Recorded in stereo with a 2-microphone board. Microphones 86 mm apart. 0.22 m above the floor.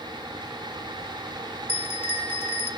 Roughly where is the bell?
Left.